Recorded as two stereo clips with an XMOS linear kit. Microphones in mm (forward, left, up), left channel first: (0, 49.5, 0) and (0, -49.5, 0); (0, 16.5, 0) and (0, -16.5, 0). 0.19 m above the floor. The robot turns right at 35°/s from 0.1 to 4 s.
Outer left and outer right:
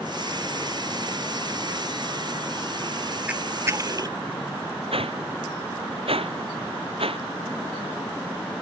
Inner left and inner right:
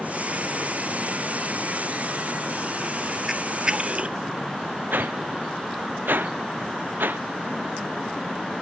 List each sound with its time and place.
3.3 s a camera shutter: 15° right (ahead or behind); by 4.2 s 40° right (ahead or behind)
4.9 s a whoosh: 70° right (ahead or behind)